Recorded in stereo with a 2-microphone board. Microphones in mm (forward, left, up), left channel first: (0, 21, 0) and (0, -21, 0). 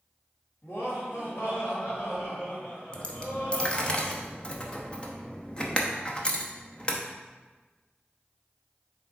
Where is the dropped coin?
20° left (ahead or behind), 0.8 m.